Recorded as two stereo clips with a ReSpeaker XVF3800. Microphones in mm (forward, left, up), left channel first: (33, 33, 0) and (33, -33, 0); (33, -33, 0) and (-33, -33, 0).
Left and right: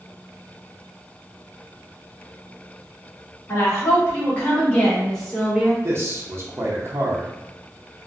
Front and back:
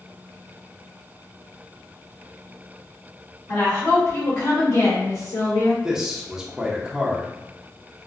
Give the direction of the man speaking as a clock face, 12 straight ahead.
3 o'clock.